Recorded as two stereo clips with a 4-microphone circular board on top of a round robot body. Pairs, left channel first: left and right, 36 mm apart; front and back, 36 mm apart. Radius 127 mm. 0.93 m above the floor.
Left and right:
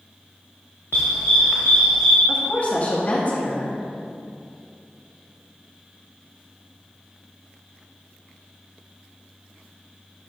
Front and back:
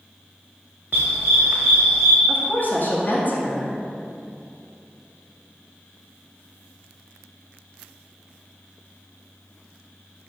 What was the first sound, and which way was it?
A dog barking, 135° left.